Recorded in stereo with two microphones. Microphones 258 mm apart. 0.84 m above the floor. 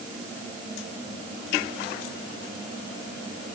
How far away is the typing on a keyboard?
No typing on a keyboard in this recording.